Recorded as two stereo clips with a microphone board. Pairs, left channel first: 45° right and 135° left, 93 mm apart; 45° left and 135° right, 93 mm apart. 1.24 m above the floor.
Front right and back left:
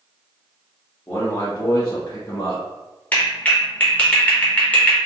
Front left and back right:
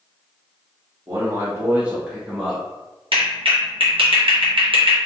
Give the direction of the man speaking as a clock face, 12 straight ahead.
3 o'clock.